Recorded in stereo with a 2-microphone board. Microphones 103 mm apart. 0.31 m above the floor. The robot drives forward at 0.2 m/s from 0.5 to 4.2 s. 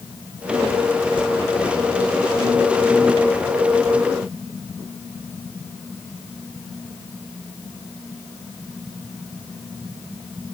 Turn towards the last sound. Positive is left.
No sound to turn to.